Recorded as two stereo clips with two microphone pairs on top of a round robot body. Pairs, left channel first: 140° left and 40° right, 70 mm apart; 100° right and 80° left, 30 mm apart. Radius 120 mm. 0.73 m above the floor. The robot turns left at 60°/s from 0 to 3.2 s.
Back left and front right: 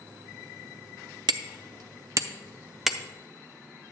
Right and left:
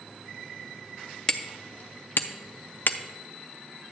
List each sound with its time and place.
1.3 s hammering: 30° right, 0.5 m; by 3.0 s 135° right, 0.5 m